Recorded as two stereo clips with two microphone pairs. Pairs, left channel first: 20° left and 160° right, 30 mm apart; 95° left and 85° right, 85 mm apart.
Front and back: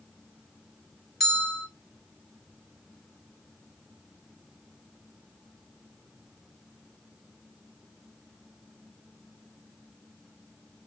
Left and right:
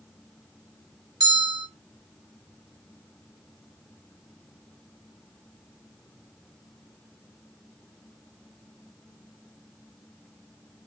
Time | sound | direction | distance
1.2 | a bell | 60° right | 1.2 m